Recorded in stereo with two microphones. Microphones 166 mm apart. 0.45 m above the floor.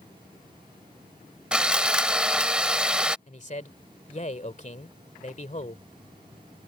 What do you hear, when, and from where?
1.5 s sawing: 5° right (ahead or behind)
3.3 s a man speaking: 45° left (ahead or behind)